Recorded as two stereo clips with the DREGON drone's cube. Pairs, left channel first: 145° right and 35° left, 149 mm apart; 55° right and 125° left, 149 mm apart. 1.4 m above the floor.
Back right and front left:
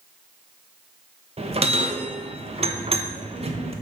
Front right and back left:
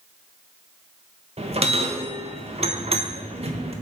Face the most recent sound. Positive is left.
turn(degrees=80)